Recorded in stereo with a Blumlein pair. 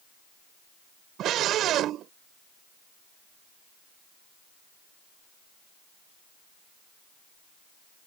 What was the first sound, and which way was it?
A scream, 30° right.